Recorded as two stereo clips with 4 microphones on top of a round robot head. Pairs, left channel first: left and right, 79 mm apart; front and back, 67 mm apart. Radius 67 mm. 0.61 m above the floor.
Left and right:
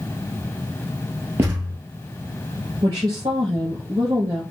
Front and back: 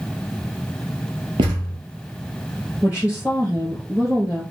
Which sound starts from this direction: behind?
A thud, at 1.4 s.